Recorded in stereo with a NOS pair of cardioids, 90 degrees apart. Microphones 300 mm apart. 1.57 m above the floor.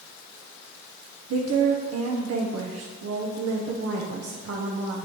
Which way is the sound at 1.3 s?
55° right.